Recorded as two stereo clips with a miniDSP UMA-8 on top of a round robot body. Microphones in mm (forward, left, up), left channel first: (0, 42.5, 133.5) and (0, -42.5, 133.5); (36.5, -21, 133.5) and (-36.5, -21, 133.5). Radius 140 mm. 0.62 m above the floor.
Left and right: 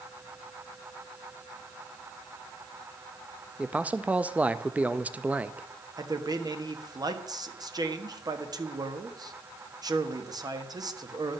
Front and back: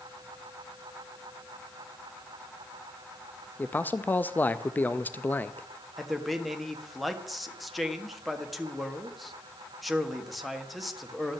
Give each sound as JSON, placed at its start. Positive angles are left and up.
{"t": 3.6, "sound": "a man speaking", "azimuth_deg": -35, "distance_m": 0.6}
{"t": 6.0, "sound": "a man speaking", "azimuth_deg": -90, "distance_m": 1.7}